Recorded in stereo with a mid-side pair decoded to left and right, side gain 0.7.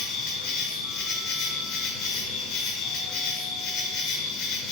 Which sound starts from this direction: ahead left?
An insect, at 0.0 s.